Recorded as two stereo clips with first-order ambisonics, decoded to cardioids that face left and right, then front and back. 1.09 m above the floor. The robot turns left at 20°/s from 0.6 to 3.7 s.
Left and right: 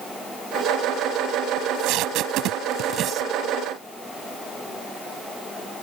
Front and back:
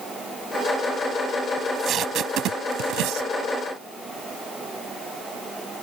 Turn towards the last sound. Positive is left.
turn(degrees=-160)